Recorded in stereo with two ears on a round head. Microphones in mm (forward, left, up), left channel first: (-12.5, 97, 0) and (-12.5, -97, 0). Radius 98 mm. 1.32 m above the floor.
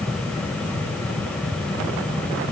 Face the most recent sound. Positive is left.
No sound to turn to.